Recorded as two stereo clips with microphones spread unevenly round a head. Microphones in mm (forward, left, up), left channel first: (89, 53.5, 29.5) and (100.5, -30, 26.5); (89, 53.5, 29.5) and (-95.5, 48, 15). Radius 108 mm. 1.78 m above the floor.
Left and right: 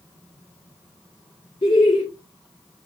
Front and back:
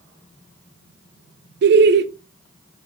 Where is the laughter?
155° left, 0.5 m.